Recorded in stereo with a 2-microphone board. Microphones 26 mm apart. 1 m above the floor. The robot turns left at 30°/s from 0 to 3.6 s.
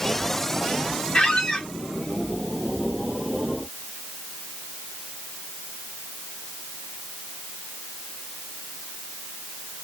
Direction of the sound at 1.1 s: 30° left (ahead or behind).